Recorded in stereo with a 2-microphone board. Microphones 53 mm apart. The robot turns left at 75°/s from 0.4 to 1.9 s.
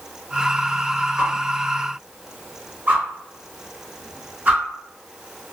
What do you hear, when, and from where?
1.2 s a whoosh: 15° right (ahead or behind), 1.8 m; by 4.6 s 30° right (ahead or behind), 1.8 m